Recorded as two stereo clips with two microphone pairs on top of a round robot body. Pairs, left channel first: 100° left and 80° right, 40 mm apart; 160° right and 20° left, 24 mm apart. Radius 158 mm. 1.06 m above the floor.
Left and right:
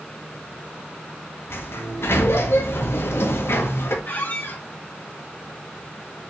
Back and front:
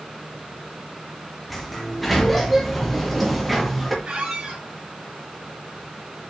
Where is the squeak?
65° left, 3.5 m.